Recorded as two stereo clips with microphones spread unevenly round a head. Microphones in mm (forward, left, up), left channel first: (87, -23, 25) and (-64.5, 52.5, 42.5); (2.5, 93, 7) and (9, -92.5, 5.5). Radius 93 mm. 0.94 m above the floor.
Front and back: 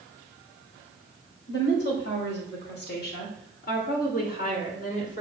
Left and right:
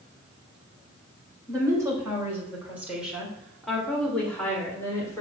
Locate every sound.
1.5 s a woman speaking: 15° right, 4 m; by 5.2 s 15° left, 3.5 m